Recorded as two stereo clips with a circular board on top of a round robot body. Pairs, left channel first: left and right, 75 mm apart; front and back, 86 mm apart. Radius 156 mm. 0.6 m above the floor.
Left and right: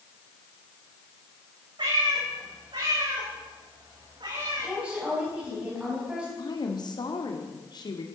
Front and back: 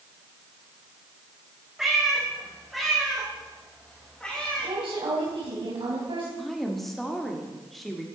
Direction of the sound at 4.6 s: 165° right.